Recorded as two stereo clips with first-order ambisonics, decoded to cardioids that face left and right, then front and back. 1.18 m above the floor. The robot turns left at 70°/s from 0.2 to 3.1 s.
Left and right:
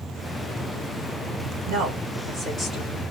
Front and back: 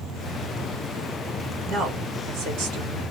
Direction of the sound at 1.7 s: 110° right.